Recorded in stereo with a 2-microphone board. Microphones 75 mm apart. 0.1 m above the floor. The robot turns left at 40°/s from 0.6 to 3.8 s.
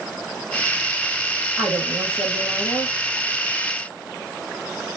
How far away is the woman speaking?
About 3 m.